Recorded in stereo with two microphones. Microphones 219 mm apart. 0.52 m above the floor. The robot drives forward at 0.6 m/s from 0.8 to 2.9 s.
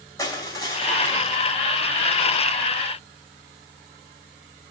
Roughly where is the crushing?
Centre.